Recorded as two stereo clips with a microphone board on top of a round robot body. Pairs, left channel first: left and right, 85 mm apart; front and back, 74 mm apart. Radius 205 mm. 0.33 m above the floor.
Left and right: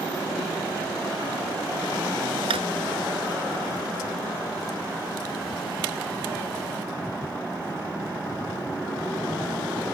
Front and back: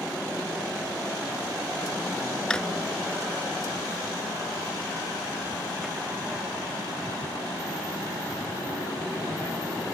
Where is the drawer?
80° right.